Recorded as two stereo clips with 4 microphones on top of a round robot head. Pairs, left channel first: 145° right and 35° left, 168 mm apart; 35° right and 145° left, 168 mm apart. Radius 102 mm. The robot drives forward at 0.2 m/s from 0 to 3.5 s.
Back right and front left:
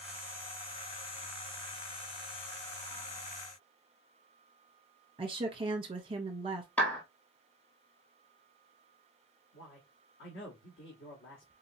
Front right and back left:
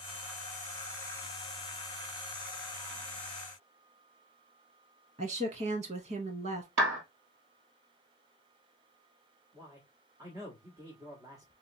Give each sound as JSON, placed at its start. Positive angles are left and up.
{"t": 5.2, "sound": "a woman speaking", "azimuth_deg": 95, "distance_m": 0.8}
{"t": 6.8, "sound": "a clap", "azimuth_deg": 135, "distance_m": 1.9}
{"t": 9.5, "sound": "a man speaking", "azimuth_deg": -145, "distance_m": 1.2}